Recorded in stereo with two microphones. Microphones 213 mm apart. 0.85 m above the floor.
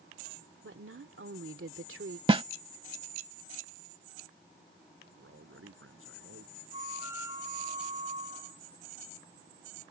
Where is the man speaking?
75° right (ahead or behind).